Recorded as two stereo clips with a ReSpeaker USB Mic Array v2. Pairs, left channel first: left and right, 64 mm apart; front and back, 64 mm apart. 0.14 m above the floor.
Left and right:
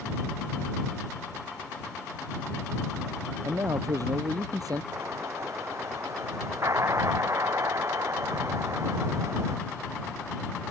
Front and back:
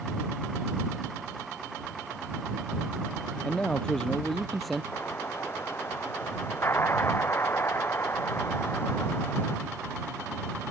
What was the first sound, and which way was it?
A man speaking, 65° right.